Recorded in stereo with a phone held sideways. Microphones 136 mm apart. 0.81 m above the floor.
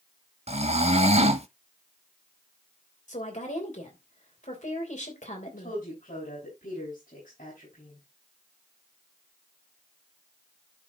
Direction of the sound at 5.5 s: 80° left.